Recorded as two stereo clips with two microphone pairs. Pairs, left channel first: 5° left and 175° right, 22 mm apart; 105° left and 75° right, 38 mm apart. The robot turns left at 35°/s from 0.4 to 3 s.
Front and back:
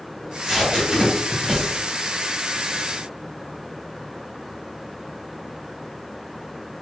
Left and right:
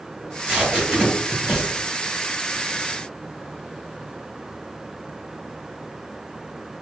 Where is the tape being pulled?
115° right, 1.2 m; by 1.7 s 160° right, 1.2 m.